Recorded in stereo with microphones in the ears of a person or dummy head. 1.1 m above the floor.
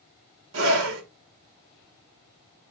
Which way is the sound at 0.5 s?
80° right.